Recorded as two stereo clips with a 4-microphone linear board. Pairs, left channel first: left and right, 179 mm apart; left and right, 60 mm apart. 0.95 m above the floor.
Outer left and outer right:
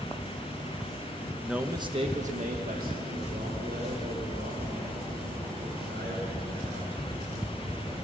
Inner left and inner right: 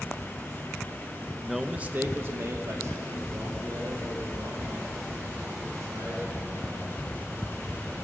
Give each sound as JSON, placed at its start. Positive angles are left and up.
{"t": 1.4, "sound": "a man speaking", "side_deg": 5, "distance_m": 1.0}